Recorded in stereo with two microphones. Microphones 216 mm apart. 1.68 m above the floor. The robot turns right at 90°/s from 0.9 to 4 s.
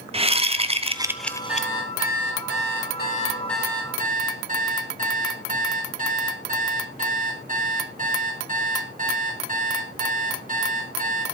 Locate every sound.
0.1 s a whoosh: 30° right, 0.7 m; by 1.7 s 40° left, 0.7 m
1.5 s an alarm clock: 5° right, 3 m; by 11.2 s 140° right, 3 m